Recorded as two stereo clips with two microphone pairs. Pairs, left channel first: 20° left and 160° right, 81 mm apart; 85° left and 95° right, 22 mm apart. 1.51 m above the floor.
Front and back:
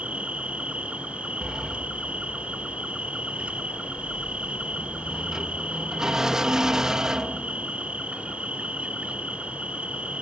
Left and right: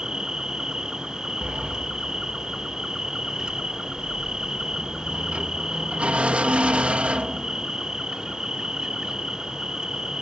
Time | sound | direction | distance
0.0 | an insect | 100° right | ?
1.4 | a sliding door | 80° right | ?